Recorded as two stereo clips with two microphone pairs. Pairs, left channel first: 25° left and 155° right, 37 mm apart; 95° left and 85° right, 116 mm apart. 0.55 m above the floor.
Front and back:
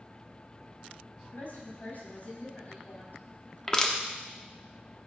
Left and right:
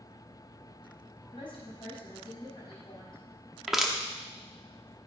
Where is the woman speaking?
50° left, 4.5 m.